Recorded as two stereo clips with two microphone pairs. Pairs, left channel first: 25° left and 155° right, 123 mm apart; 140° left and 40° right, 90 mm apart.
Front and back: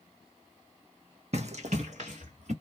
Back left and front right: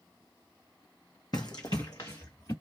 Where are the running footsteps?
175° left, 0.8 m; by 2.5 s 170° right, 1.5 m.